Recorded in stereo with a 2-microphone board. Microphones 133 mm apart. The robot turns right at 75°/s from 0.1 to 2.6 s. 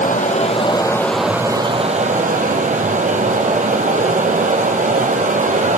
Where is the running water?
100° left, 1.1 m; by 5.8 s 75° right, 1.1 m.